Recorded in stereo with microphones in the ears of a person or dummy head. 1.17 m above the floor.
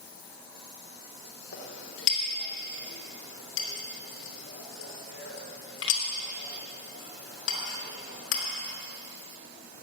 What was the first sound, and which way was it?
A clink, 85° left.